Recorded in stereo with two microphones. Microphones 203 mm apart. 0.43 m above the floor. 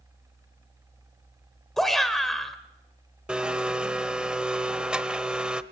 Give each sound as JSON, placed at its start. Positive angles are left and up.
{"t": 1.8, "sound": "a shout", "side_deg": 0, "distance_m": 1.4}
{"t": 3.3, "sound": "a blender", "side_deg": -5, "distance_m": 0.7}